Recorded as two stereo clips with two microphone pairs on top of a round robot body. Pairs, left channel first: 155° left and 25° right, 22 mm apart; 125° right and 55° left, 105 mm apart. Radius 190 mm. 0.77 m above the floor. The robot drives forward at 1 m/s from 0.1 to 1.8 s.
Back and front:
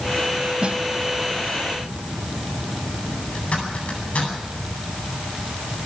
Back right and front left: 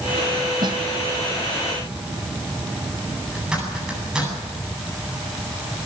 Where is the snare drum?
5° left, 1.4 m; by 0.8 s 10° left, 1.2 m.